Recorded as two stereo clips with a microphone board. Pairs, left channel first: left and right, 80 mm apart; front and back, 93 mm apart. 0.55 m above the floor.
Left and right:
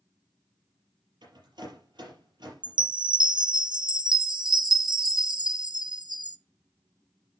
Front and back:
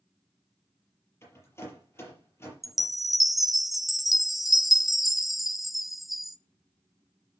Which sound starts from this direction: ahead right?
A rattle, at 1.2 s.